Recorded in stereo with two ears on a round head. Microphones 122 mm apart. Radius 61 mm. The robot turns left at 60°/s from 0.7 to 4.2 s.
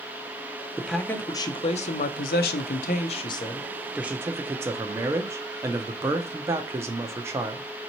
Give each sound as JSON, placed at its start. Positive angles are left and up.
{"t": 0.8, "sound": "a man speaking", "azimuth_deg": -175, "distance_m": 0.5}